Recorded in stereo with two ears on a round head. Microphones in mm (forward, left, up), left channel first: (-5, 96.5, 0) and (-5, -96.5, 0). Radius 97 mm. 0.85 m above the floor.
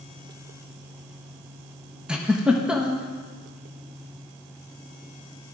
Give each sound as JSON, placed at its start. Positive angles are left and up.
{"t": 2.1, "sound": "a giggle", "side_deg": -5, "distance_m": 0.8}